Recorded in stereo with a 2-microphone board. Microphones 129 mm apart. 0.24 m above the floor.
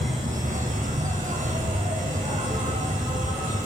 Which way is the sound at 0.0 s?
80° right.